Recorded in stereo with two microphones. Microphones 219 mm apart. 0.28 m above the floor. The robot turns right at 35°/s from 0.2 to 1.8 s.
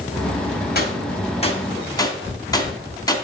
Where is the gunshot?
45° left (ahead or behind), 2.5 m; by 3.1 s 15° left (ahead or behind), 2.5 m.